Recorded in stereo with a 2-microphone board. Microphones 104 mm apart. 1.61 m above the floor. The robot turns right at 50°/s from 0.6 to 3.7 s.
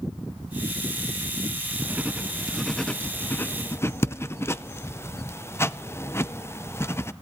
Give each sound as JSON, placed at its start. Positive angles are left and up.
{"t": 1.8, "sound": "writing", "side_deg": -15, "distance_m": 0.6}